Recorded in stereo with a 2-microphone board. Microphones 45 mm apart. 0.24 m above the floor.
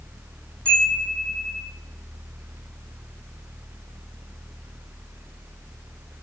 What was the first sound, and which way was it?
A chime, 20° left (ahead or behind).